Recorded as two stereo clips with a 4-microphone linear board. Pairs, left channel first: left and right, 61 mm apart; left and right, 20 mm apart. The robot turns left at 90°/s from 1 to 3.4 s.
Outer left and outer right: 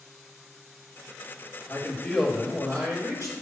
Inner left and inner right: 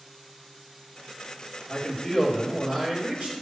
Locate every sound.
1.7 s a man speaking: 45° left, 2.5 m; by 3.3 s 100° right, 2.5 m